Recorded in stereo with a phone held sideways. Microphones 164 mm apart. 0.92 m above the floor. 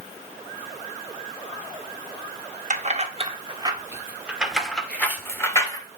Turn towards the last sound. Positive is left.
turn(degrees=20)  # may be behind; listen again after turning